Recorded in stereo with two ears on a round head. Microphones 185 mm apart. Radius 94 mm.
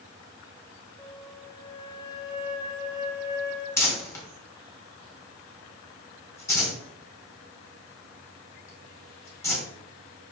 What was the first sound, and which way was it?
A flute, 20° left (ahead or behind).